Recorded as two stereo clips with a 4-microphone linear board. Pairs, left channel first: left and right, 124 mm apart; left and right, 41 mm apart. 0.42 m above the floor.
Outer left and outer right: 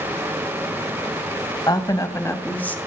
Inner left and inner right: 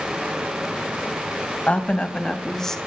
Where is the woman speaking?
35° left (ahead or behind), 2 m; by 2.8 s 10° left (ahead or behind), 2.5 m.